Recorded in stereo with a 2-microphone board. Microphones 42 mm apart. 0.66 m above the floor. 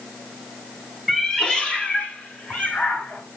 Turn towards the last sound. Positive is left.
turn(degrees=50)  # may be behind; listen again after turning